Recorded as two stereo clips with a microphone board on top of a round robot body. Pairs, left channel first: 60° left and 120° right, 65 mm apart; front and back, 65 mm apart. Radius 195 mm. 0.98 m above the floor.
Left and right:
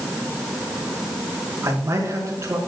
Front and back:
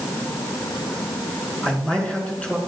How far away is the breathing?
No breathing in this recording.